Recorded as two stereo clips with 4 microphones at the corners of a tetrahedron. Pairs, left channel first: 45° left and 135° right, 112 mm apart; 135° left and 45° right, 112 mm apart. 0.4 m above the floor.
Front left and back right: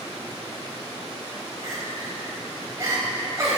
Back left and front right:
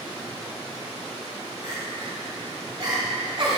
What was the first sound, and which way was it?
Crying, 75° right.